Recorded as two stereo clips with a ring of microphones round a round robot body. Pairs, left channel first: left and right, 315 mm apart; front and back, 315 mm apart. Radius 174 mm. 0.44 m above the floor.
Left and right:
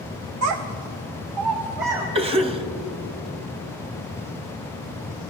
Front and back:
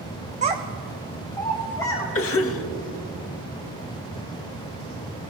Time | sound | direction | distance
0.4 | a child speaking | 120° right | 0.6 m
2.1 | a cough | 25° right | 1.3 m